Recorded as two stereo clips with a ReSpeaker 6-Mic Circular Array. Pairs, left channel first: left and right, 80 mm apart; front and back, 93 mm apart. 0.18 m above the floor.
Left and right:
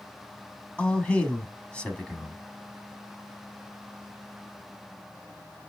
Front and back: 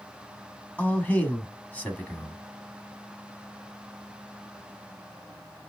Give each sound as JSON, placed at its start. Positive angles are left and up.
{"t": 0.8, "sound": "a man speaking", "azimuth_deg": 40, "distance_m": 1.0}